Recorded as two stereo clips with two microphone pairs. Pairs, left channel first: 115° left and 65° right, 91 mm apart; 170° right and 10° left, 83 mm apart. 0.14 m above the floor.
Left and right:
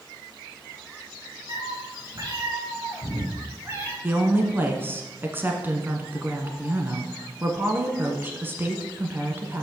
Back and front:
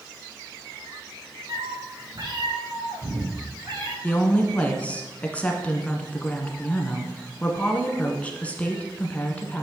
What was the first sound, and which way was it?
A cat meowing, 20° right.